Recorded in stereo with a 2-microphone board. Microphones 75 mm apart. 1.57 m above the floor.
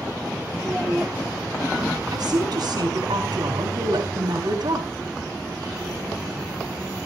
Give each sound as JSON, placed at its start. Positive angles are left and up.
{"t": 0.6, "sound": "a child speaking", "side_deg": -20, "distance_m": 0.9}
{"t": 2.1, "sound": "a woman speaking", "side_deg": -70, "distance_m": 3.5}